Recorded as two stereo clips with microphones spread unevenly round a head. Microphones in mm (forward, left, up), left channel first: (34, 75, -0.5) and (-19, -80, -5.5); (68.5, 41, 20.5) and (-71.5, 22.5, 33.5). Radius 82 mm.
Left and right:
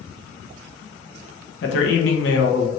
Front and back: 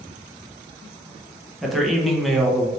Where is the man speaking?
95° left, 0.9 m.